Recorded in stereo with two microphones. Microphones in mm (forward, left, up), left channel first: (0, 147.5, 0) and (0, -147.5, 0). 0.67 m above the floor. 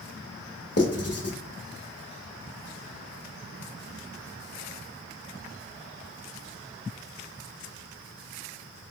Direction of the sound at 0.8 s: 55° left (ahead or behind).